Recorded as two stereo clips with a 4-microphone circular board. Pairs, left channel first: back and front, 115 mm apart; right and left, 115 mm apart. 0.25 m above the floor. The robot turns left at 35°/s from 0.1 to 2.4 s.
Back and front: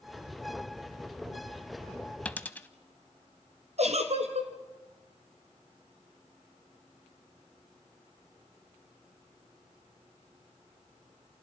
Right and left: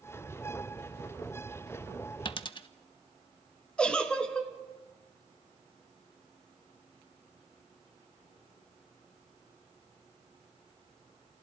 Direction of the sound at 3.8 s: 10° right.